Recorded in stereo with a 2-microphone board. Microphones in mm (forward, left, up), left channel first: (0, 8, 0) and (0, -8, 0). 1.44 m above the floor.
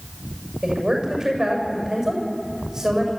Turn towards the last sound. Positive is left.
turn(degrees=-25)  # may be behind; listen again after turning